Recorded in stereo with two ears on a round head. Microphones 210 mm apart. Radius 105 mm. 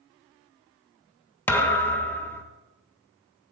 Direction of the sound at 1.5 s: 10° left (ahead or behind).